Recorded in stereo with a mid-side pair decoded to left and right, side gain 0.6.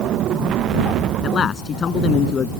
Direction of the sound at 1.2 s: 40° left.